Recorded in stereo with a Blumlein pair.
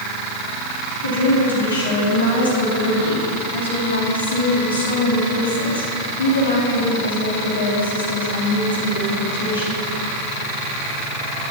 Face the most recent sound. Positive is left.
turn(degrees=70)